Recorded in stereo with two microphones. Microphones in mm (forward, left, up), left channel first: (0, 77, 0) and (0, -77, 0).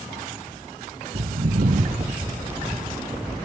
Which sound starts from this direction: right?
Footsteps, at 1.1 s.